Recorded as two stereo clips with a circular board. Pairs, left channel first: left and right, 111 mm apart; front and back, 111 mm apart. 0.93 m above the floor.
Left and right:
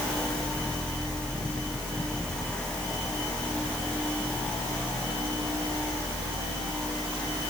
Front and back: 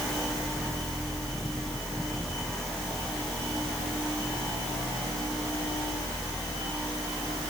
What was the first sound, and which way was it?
Only background noise.